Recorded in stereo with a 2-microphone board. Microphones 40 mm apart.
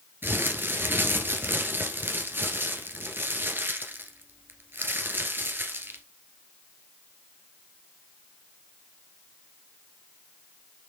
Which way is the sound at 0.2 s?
60° right (ahead or behind).